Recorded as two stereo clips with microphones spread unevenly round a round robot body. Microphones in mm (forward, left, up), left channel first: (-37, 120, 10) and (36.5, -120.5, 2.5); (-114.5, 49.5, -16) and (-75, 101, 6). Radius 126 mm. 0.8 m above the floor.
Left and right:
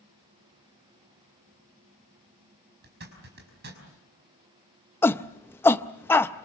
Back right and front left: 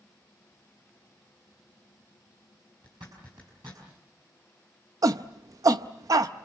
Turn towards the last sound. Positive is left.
turn(degrees=30)